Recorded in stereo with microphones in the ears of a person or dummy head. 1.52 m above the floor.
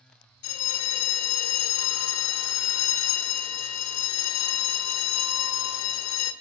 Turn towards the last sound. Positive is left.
turn(degrees=80)